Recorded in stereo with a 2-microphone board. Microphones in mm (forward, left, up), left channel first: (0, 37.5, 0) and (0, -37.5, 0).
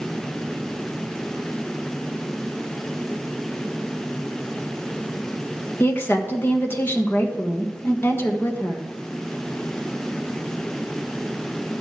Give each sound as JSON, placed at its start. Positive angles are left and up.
{"t": 5.8, "sound": "a woman speaking", "side_deg": 30, "distance_m": 1.3}